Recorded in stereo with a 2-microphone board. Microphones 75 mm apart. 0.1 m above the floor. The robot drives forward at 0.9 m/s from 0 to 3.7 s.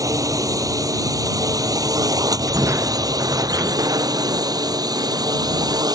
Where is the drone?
50° right (ahead or behind); by 6.0 s 60° right (ahead or behind).